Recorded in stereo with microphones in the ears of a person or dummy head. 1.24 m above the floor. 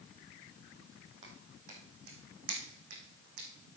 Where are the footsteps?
40° right (ahead or behind), 2.5 m; by 3.8 s 60° right (ahead or behind), 4 m.